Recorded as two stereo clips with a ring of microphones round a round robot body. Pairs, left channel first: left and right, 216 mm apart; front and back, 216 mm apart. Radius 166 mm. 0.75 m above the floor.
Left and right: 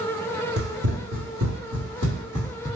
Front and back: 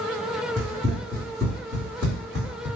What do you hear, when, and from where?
0.6 s running footsteps: 90° right, 1.1 m; by 2.7 s 140° right, 1.8 m